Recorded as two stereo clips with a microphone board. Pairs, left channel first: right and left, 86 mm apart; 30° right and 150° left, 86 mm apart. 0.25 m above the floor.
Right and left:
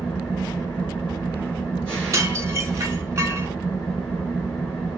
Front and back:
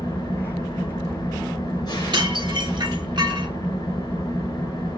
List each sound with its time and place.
0.0 s an engine running: 15° right, 2.5 m
2.1 s dishes clattering: 140° left, 1.6 m